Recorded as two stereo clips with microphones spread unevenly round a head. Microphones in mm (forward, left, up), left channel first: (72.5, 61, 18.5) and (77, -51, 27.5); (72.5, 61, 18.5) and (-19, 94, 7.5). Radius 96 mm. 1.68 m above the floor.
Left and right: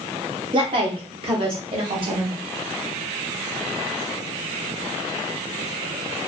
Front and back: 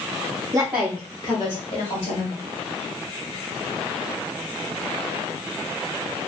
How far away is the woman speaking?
About 0.6 m.